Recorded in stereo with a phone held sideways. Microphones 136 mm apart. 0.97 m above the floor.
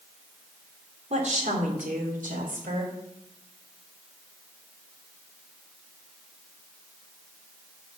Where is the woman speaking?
60° right (ahead or behind), 3 m; by 2.9 s 75° right (ahead or behind), 4 m.